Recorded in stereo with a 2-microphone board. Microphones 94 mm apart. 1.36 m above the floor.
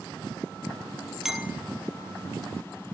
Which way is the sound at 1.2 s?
5° right (ahead or behind).